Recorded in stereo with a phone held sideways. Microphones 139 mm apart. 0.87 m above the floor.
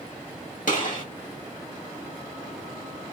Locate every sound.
0.7 s a gunshot: 70° left (ahead or behind), 2 m